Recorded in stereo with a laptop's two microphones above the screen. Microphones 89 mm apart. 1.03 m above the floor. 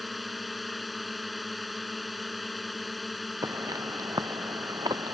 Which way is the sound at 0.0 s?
Centre (ahead or behind).